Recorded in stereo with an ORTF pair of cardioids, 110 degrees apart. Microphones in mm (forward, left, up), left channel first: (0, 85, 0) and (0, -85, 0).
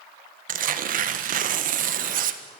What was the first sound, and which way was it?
Tearing paper, 60° right.